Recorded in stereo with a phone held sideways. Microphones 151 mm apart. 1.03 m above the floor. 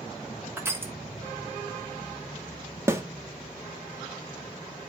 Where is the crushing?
15° right (ahead or behind), 2.5 m.